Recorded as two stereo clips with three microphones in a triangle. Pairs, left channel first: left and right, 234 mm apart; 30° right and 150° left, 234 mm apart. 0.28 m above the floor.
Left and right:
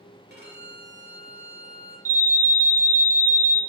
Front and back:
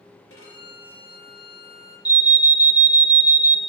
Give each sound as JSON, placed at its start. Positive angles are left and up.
{"t": 0.3, "sound": "a violin", "azimuth_deg": -50, "distance_m": 3.0}
{"t": 2.0, "sound": "an alarm", "azimuth_deg": -145, "distance_m": 0.6}